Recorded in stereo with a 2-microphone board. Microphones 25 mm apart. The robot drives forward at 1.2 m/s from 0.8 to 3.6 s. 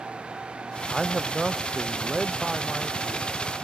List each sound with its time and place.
0.9 s a man speaking: 5° right (ahead or behind)